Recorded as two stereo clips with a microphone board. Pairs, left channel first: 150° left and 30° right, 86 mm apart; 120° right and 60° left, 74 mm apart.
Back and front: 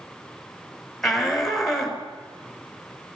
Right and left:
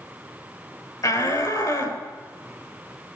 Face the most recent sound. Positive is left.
turn(degrees=-125)